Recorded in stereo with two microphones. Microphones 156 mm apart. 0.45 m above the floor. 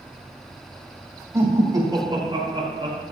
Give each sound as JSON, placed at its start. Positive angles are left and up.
{"t": 1.3, "sound": "laughter", "side_deg": -20, "distance_m": 3.0}